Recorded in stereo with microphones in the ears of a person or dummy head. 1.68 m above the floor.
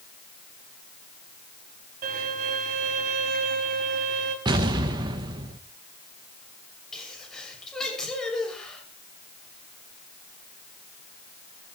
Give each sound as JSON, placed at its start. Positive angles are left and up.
{"t": 2.0, "sound": "a violin", "side_deg": -40, "distance_m": 2.5}
{"t": 4.5, "sound": "an explosion", "side_deg": -20, "distance_m": 0.9}
{"t": 6.9, "sound": "a sneeze", "side_deg": 5, "distance_m": 7.0}